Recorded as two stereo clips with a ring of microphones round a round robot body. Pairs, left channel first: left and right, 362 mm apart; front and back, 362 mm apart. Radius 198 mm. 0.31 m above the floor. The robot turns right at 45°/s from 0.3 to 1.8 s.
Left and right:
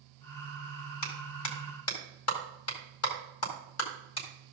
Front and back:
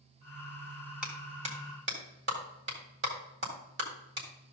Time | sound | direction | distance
1.0 | a clap | 90° left | 1.9 m